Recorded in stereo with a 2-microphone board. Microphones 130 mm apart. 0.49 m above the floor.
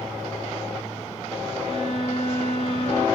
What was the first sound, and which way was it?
A violin, 55° left (ahead or behind).